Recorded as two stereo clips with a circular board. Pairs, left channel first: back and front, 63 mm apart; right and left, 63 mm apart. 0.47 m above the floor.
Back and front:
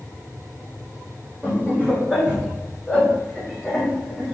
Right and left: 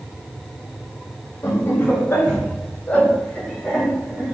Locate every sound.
1.4 s laughter: 60° right, 1.9 m; by 4.3 s 115° left, 1.2 m